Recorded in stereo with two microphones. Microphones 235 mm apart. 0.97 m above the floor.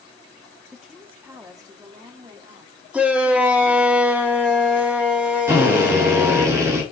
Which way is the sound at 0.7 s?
Centre (ahead or behind).